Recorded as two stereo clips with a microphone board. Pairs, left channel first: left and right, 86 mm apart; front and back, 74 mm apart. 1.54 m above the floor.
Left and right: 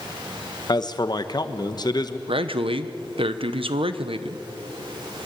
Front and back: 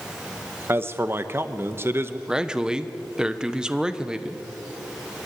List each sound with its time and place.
0.7 s a man speaking: 125° left, 1.1 m
2.3 s a man speaking: 100° right, 1.1 m